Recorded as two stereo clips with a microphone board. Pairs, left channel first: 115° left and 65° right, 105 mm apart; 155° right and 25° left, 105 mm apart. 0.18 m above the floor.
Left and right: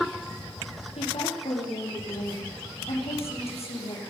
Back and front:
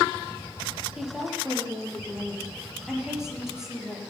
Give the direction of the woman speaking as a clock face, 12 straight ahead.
8 o'clock.